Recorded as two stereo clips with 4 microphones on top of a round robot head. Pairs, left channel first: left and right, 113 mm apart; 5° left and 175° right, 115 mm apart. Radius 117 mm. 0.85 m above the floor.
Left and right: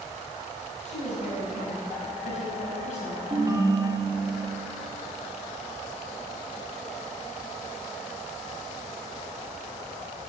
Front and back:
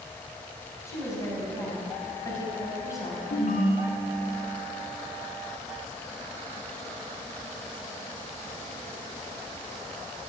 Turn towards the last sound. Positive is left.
turn(degrees=-30)